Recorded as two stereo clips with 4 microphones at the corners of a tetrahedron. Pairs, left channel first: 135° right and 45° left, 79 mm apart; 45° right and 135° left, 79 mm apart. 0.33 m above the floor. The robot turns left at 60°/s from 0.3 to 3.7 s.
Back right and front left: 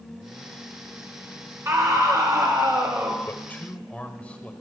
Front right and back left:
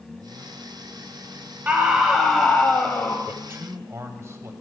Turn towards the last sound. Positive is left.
turn(degrees=160)